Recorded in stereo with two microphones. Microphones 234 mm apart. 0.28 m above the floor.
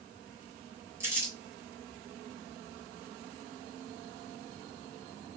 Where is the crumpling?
10° right (ahead or behind), 1.8 m.